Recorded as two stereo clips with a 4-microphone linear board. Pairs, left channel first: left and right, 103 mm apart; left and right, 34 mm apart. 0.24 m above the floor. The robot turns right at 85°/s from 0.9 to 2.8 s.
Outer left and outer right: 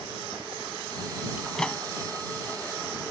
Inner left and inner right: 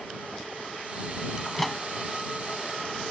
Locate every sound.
1.4 s a microwave: 10° right (ahead or behind); by 1.8 s 20° left (ahead or behind)